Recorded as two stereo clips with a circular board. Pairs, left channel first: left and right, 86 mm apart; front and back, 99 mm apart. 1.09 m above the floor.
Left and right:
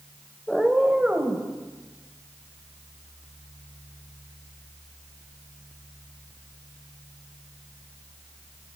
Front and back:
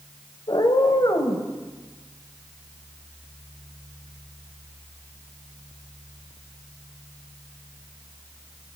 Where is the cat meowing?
5° left, 1.1 m; by 1.5 s 25° right, 1.5 m.